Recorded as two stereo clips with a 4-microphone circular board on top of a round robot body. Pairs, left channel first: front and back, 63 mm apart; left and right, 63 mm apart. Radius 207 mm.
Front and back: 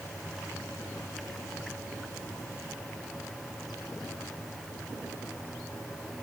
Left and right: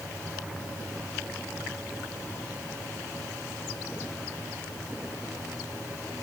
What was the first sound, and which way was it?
Only background noise.